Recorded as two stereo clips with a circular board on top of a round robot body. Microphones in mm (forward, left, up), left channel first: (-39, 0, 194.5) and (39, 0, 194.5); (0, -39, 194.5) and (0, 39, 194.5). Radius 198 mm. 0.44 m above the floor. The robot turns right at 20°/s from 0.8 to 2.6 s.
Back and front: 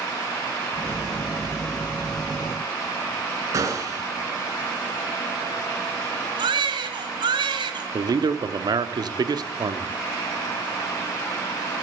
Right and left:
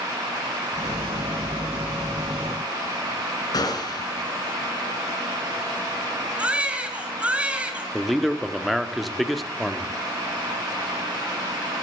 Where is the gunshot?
50° right, 2 m.